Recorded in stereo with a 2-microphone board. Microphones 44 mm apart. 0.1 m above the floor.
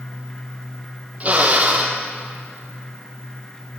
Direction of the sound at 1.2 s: 35° right (ahead or behind).